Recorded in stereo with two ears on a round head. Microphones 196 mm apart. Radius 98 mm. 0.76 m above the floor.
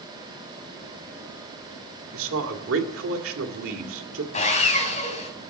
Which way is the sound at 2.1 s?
65° right (ahead or behind).